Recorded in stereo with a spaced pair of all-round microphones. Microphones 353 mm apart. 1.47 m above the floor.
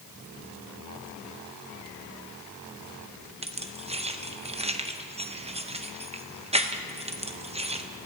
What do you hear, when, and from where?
3.4 s keys jangling: 15° right (ahead or behind), 0.7 m